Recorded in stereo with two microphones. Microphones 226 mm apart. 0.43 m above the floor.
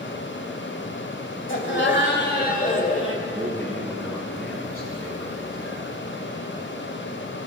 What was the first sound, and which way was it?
Laughter, 60° left (ahead or behind).